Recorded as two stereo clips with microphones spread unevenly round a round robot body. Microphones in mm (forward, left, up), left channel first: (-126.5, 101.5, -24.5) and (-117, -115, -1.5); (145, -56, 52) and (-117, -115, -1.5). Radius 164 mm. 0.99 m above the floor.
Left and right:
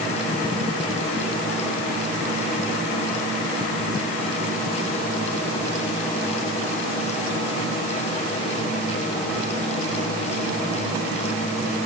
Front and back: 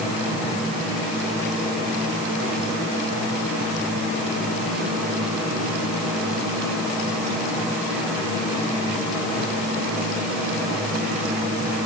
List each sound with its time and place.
Only background noise.